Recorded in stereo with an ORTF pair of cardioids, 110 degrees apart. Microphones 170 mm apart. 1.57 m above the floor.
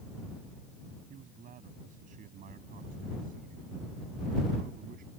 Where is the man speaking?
55° right; by 5.1 s 60° right.